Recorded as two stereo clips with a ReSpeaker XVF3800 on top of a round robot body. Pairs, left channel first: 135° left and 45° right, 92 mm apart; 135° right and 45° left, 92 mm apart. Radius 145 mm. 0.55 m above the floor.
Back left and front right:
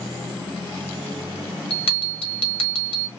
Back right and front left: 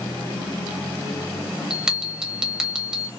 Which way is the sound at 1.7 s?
130° left.